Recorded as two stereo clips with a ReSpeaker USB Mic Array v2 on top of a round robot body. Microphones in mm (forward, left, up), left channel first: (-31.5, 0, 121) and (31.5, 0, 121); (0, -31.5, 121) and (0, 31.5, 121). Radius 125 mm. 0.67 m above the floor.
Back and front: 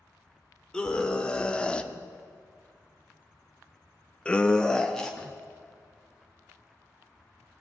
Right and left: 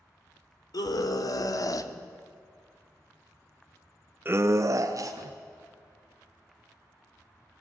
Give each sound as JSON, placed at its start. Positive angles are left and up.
{"t": 0.7, "sound": "a scream", "azimuth_deg": -100, "distance_m": 2.5}